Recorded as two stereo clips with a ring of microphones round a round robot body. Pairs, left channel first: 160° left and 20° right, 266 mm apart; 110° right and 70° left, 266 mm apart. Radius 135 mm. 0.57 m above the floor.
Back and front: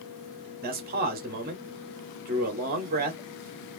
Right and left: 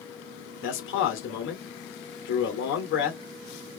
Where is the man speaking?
75° right, 1.8 m.